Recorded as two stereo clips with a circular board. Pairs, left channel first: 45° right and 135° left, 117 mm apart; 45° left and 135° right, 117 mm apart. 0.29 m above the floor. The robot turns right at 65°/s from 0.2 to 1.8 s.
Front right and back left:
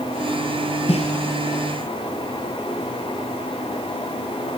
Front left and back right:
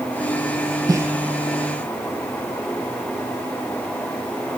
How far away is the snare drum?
About 1.9 m.